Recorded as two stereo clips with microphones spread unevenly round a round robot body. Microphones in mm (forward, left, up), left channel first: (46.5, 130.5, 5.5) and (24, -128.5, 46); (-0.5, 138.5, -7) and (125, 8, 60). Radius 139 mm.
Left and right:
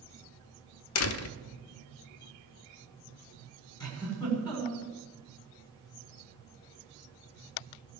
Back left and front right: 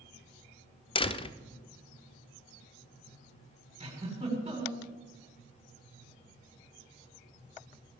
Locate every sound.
0.9 s a door slam: 85° left, 0.9 m
3.8 s a giggle: 15° left, 7 m